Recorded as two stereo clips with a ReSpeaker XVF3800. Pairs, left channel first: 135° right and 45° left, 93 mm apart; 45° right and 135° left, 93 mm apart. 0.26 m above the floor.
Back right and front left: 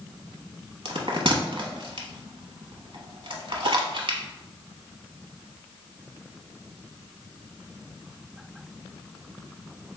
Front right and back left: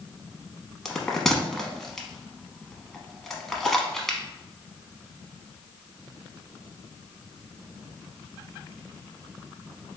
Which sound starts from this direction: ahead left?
A bell, at 0.8 s.